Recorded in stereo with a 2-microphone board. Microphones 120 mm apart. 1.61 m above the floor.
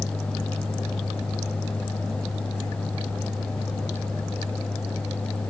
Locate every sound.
Only background noise.